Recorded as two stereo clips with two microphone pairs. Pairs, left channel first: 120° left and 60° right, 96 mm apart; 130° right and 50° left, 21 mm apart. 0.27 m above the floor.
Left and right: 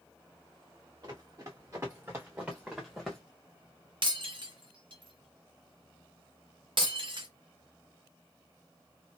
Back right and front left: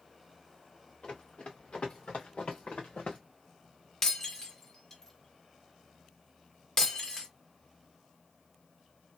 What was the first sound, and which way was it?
Running footsteps, 105° right.